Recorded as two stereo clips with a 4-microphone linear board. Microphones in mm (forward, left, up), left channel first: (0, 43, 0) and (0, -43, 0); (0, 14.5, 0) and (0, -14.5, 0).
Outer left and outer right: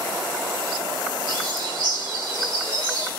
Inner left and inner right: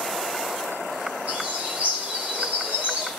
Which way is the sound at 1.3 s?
70° right (ahead or behind).